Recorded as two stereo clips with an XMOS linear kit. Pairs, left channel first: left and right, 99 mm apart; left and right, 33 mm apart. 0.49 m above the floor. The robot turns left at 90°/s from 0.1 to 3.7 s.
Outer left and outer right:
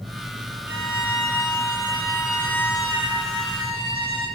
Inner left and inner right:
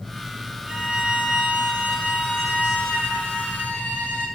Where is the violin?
25° right, 3 m; by 4.3 s 65° left, 3 m.